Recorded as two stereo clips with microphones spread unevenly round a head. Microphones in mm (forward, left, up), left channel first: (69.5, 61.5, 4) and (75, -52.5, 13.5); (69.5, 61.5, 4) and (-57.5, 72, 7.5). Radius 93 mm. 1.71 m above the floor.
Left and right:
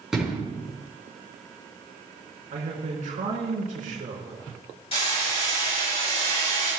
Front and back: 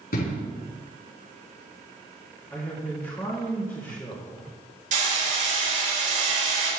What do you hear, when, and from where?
0.1 s an explosion: straight ahead, 4.5 m
2.5 s a man speaking: 85° right, 3 m
4.9 s hammering: 155° left, 5.5 m